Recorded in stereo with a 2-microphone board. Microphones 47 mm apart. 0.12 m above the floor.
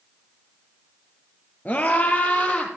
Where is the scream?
35° left (ahead or behind), 1.8 m; by 2.7 s 30° left (ahead or behind), 3.5 m.